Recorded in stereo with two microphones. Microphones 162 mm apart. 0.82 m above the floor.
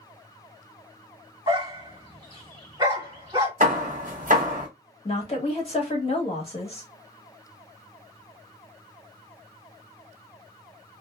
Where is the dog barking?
25° right (ahead or behind), 1.6 m.